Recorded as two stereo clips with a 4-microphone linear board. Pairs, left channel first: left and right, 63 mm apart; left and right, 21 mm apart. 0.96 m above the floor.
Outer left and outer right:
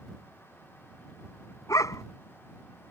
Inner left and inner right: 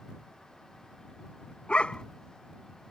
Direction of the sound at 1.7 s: 55° left (ahead or behind).